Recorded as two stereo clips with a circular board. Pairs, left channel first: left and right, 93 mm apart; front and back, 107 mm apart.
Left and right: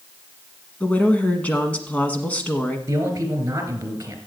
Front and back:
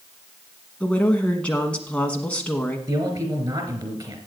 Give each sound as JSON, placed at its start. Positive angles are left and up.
{"t": 0.8, "sound": "a woman speaking", "azimuth_deg": 55, "distance_m": 1.1}
{"t": 2.9, "sound": "a man speaking", "azimuth_deg": -140, "distance_m": 3.0}